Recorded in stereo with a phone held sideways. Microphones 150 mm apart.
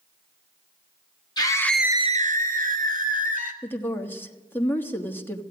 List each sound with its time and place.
1.4 s a scream: 25° left (ahead or behind), 0.9 m; by 3.5 s 55° right (ahead or behind), 2 m
3.6 s a woman speaking: 15° left (ahead or behind), 1.4 m